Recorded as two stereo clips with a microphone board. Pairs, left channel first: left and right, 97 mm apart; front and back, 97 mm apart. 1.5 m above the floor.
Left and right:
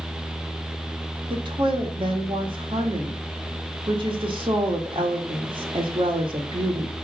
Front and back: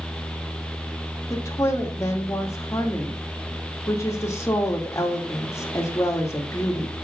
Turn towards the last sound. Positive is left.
turn(degrees=-60)